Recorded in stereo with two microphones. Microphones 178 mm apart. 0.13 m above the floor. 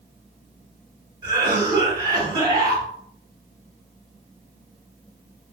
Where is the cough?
25° right (ahead or behind), 1.7 m.